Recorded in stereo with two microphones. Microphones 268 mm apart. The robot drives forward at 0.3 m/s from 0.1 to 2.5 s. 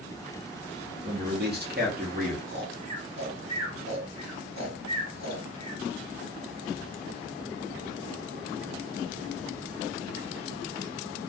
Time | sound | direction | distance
1.0 | a man speaking | 40° right (ahead or behind) | 1.0 m
2.5 | snoring | 75° right (ahead or behind) | 1.1 m